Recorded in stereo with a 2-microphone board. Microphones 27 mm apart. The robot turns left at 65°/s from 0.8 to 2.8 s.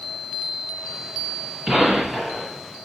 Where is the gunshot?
135° right, 1.6 m; by 2.5 s 175° left, 1.6 m.